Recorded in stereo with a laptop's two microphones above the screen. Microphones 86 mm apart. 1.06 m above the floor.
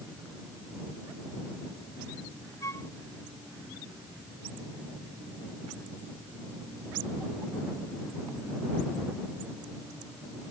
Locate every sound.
2.6 s a flute: 40° left (ahead or behind)